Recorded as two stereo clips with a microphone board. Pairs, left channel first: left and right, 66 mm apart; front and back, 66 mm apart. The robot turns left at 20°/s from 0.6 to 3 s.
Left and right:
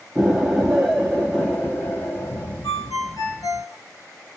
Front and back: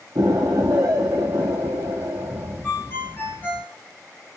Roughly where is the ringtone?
Ahead left.